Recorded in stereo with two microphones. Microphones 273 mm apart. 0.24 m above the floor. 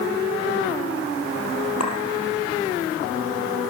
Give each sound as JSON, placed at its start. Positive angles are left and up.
{"t": 1.8, "sound": "a clink", "side_deg": 70, "distance_m": 4.5}